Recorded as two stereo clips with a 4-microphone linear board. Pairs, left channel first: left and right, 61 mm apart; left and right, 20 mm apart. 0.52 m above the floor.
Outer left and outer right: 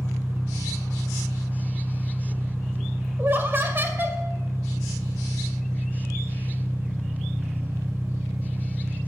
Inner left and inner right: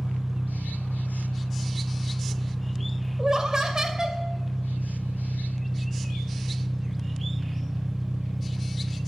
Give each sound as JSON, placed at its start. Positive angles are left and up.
{"t": 0.0, "sound": "an engine running", "side_deg": -45, "distance_m": 1.5}
{"t": 3.2, "sound": "laughter", "side_deg": -35, "distance_m": 2.0}